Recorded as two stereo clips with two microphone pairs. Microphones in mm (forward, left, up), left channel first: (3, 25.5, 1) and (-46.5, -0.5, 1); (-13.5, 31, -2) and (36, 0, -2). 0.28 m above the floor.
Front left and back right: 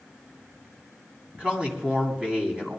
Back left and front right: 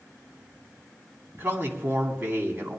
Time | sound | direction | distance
1.4 | a man speaking | 80° right | 2.5 m